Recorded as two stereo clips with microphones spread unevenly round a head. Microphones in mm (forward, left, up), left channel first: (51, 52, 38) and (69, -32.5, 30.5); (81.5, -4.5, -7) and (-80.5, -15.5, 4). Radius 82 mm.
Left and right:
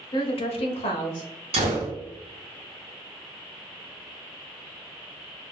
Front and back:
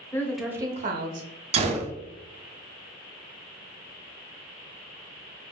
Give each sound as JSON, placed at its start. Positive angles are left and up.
{"t": 0.1, "sound": "a woman speaking", "azimuth_deg": 80, "distance_m": 0.8}
{"t": 1.5, "sound": "a gunshot", "azimuth_deg": -125, "distance_m": 0.6}